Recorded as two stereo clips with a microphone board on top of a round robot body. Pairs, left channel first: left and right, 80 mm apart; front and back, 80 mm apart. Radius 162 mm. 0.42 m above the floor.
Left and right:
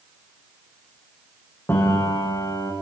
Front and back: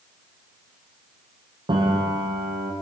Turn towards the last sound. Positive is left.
turn(degrees=155)